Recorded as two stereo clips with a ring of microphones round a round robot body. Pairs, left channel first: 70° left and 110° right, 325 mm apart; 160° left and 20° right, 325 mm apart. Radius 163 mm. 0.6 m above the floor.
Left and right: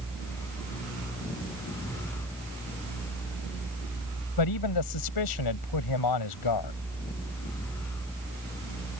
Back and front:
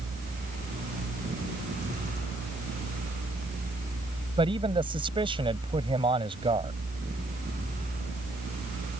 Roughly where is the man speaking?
Ahead left.